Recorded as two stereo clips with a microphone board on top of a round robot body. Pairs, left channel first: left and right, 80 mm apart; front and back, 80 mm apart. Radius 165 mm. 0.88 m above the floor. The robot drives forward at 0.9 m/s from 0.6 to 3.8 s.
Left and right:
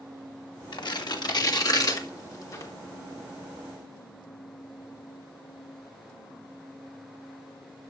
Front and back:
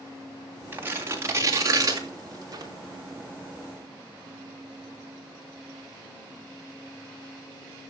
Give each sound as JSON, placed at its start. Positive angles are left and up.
{"t": 0.7, "sound": "tearing paper", "azimuth_deg": 115, "distance_m": 2.5}